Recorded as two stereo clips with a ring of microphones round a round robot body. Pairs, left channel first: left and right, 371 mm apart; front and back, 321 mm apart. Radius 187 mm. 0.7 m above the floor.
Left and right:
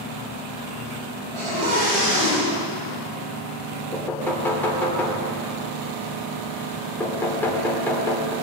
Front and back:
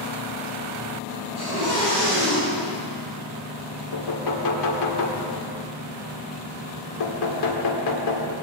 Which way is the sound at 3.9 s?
5° left.